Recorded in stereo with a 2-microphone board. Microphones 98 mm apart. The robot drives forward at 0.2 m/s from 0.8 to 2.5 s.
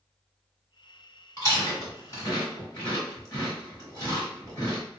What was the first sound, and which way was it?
Chewing, 30° left (ahead or behind).